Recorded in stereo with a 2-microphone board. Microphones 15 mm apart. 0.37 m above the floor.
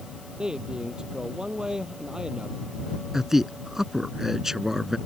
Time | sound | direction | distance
0.4 | a man speaking | 60° right (ahead or behind) | ?
3.1 | a man speaking | 30° right (ahead or behind) | ?